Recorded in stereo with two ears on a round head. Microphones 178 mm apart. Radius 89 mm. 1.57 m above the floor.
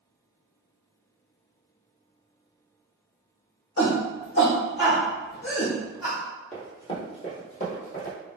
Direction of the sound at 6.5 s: 10° left (ahead or behind).